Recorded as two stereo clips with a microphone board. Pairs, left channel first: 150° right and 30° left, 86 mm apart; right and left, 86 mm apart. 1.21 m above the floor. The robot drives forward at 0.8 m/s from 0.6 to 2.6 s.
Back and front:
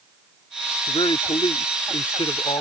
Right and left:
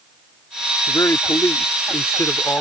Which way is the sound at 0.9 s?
135° right.